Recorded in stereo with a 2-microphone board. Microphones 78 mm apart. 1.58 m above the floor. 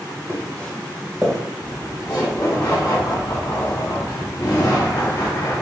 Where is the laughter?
60° left (ahead or behind), 2 m.